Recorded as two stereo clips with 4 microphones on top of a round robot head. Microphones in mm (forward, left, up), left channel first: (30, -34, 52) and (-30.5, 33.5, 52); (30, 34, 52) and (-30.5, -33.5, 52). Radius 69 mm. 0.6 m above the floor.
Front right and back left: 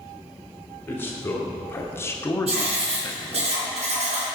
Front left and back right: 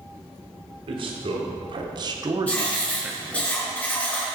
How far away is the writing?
About 3 m.